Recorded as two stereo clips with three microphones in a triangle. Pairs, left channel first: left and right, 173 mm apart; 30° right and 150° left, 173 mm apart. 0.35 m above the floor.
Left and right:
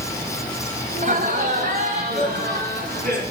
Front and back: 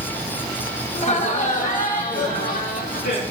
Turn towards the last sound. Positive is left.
turn(degrees=-55)